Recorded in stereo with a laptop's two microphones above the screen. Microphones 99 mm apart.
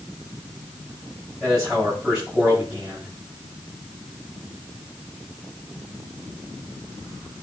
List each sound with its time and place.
1.4 s a man speaking: 10° right (ahead or behind), 7.5 m